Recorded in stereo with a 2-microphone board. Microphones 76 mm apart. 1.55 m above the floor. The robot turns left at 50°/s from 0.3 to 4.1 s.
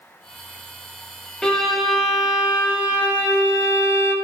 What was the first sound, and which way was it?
A violin, 20° left.